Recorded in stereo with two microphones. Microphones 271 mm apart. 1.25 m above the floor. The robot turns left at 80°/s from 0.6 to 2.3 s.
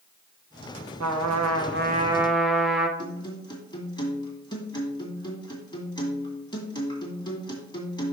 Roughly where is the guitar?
Centre.